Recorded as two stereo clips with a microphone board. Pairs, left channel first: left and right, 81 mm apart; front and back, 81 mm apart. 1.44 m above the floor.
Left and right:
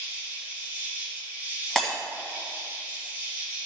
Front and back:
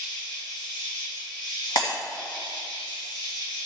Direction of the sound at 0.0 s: 20° right.